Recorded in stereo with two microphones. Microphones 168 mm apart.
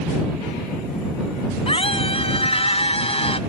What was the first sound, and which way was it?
A scream, 35° left (ahead or behind).